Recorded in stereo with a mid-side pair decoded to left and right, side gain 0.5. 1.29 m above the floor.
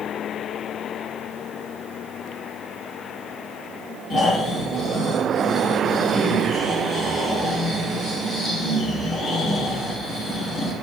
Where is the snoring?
45° left, 5 m.